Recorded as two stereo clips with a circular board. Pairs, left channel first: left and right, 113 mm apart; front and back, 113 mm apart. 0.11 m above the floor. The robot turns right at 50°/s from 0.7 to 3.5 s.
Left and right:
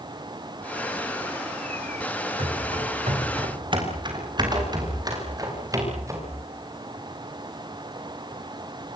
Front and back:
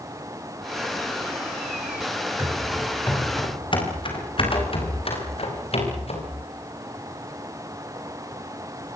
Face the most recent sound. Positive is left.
turn(degrees=-25)